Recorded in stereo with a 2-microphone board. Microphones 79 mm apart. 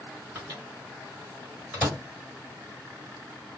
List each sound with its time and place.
0.3 s a microwave: 20° right (ahead or behind), 1.6 m